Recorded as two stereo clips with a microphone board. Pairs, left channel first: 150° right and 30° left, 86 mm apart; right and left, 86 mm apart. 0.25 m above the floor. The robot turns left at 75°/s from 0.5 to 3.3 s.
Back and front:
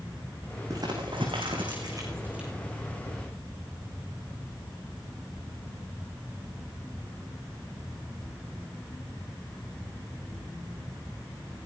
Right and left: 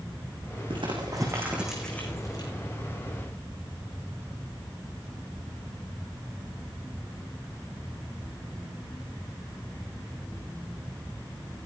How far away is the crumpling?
About 6 m.